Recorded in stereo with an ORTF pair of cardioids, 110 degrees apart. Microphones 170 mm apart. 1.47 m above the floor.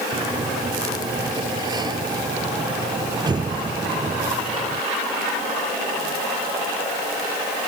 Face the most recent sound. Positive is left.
turn(degrees=-25)